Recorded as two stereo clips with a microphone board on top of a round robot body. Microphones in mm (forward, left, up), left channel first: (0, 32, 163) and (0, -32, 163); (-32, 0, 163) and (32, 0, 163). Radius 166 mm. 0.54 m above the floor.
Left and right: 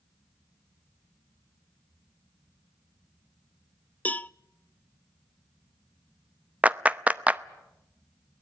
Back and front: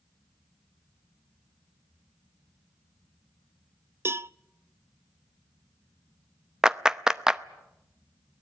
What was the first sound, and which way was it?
A cowbell, 30° left.